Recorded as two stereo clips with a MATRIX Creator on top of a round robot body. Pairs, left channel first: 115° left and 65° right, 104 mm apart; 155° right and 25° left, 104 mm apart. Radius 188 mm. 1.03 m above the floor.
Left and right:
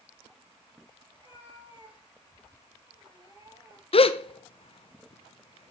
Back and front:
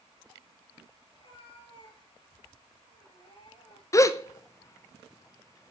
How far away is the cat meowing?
About 7.5 m.